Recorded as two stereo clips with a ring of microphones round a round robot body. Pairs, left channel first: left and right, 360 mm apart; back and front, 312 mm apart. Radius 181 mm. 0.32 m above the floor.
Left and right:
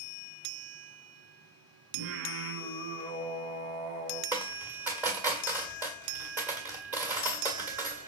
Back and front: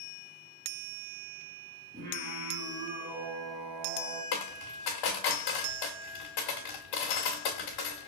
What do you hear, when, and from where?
1.9 s singing: 65° right, 1.9 m
4.3 s a dropped coin: 175° right, 1.8 m